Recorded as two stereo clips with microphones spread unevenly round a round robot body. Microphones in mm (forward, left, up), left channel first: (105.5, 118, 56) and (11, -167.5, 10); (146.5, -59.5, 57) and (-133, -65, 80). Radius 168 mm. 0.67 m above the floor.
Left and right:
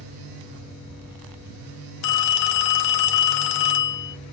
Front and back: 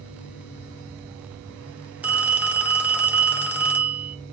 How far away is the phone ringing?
About 0.6 m.